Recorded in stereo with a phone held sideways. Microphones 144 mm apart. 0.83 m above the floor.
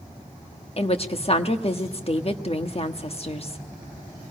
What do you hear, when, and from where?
0.8 s a woman speaking: 45° left (ahead or behind), 1.2 m